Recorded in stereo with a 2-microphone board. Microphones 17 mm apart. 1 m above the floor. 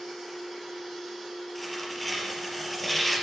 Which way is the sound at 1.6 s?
5° left (ahead or behind).